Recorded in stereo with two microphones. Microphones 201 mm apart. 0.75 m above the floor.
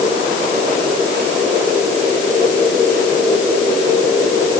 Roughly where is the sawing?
No sawing in this recording.